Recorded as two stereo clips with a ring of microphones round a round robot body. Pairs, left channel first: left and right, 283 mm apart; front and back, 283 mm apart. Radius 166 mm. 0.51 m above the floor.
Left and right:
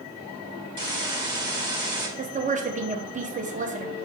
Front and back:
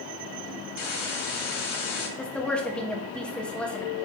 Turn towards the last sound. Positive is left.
turn(degrees=-80)